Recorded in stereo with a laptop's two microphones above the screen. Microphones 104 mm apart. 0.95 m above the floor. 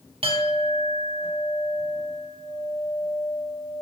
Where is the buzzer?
No buzzer in this recording.